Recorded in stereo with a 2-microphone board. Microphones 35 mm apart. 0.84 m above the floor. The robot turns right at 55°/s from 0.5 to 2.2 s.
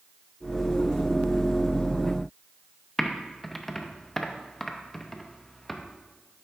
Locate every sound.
3.0 s typing on a keyboard: 5° left (ahead or behind), 0.6 m